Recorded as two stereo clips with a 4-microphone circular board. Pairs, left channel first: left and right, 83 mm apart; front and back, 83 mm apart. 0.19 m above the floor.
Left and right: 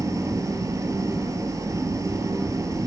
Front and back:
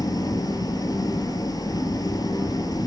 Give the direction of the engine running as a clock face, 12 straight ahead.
1 o'clock.